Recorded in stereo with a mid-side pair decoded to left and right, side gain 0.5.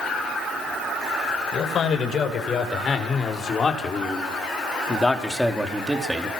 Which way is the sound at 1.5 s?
50° left.